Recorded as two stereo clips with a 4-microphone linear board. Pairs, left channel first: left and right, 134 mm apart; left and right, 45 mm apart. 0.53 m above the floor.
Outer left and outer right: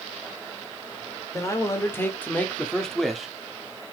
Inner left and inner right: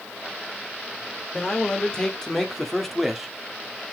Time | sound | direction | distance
1.3 | a man speaking | 25° left (ahead or behind) | 2 m